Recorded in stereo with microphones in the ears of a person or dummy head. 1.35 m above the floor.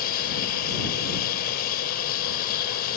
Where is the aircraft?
50° left (ahead or behind).